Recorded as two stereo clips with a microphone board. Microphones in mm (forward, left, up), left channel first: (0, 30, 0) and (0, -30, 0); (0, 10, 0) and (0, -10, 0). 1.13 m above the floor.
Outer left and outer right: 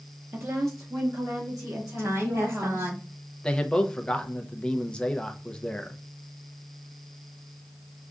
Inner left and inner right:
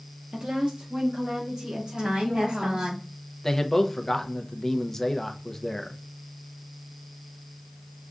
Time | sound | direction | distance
0.3 | a woman speaking | 45° right (ahead or behind) | 0.6 m
2.0 | a woman speaking | 55° right (ahead or behind) | 2 m
3.4 | a man speaking | 15° left (ahead or behind) | 0.6 m